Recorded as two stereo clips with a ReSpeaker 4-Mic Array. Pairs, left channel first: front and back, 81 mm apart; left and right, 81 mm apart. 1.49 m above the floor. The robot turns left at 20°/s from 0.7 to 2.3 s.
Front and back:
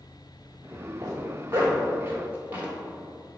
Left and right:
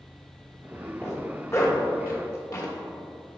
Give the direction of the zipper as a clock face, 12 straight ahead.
7 o'clock.